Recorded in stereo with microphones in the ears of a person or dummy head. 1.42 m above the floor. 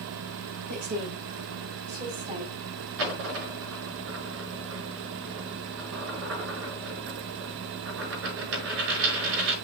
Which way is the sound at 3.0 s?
65° right (ahead or behind).